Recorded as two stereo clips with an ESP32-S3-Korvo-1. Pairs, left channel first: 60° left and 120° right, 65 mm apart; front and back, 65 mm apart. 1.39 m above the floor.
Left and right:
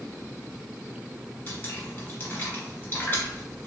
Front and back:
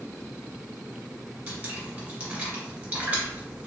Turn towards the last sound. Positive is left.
turn(degrees=115)